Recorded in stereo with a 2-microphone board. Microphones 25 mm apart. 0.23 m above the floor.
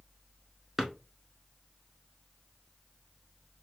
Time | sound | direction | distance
0.8 | a drawer | 10° right (ahead or behind) | 1.0 m